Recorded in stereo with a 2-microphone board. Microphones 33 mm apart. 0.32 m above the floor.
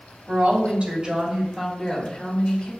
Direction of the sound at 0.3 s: 45° right (ahead or behind).